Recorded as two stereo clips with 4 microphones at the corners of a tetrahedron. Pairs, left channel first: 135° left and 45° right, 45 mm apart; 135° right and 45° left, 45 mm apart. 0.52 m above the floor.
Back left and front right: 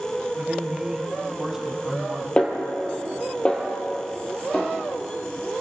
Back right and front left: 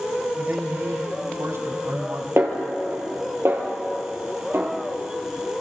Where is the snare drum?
65° left, 3.5 m.